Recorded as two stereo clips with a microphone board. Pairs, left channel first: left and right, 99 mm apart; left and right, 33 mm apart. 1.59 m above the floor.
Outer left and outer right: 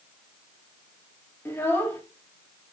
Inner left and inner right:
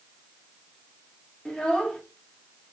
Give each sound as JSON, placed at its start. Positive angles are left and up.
{"t": 1.4, "sound": "a child speaking", "side_deg": 20, "distance_m": 1.9}